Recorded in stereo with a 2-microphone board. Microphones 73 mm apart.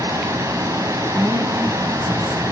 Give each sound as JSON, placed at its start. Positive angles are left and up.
{"t": 0.0, "sound": "running water", "side_deg": -45, "distance_m": 2.5}
{"t": 1.1, "sound": "a woman speaking", "side_deg": -40, "distance_m": 4.0}